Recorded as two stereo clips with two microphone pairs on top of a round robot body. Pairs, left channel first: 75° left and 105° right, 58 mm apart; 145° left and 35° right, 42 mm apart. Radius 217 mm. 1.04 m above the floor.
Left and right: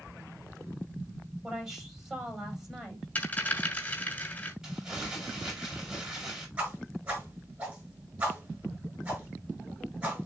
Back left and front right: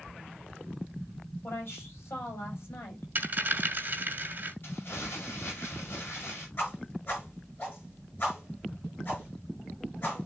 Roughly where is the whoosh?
Behind.